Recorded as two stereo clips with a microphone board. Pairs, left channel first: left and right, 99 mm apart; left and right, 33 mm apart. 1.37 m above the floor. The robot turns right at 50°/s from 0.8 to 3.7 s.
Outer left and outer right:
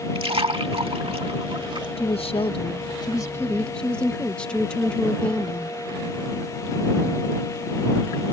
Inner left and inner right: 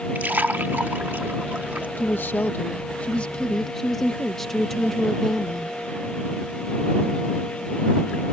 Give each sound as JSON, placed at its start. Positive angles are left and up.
{"t": 0.1, "sound": "a splash", "side_deg": -70}
{"t": 2.0, "sound": "a woman speaking", "azimuth_deg": 85}